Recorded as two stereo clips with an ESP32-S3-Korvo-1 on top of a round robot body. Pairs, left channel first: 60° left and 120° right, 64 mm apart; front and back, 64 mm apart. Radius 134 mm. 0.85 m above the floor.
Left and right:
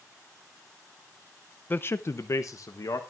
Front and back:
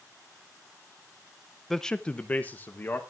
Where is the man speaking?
85° left, 0.6 m; by 3.0 s 55° left, 1.1 m.